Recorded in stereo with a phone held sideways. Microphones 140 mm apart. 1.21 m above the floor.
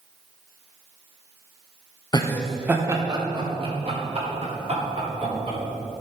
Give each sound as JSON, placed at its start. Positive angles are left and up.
{"t": 2.1, "sound": "laughter", "side_deg": 30, "distance_m": 0.8}